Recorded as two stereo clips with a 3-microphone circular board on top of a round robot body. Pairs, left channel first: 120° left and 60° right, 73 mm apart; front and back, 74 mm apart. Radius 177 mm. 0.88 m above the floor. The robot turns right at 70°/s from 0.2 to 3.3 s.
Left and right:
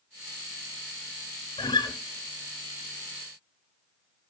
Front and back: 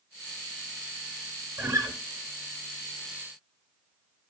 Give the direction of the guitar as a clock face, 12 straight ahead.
8 o'clock.